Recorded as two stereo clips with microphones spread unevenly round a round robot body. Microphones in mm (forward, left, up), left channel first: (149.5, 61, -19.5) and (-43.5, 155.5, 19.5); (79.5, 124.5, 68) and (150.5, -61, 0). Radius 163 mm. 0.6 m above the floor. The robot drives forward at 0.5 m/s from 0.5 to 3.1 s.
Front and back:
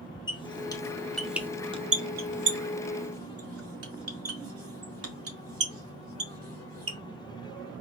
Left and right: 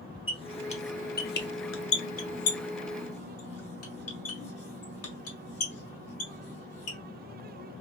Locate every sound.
0.3 s a squeak: 40° left, 1.0 m; by 7.0 s 130° left, 0.9 m